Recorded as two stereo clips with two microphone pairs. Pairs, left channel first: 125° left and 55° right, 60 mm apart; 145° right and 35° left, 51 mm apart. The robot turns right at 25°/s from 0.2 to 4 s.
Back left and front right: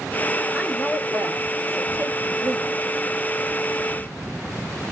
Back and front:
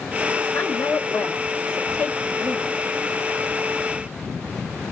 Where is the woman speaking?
140° right, 2.0 m; by 2.8 s 80° right, 2.0 m.